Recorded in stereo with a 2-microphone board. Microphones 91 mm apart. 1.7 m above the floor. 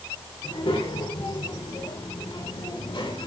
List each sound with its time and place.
0.4 s a child speaking: 85° left, 5 m; by 3.3 s 70° left (ahead or behind), 5 m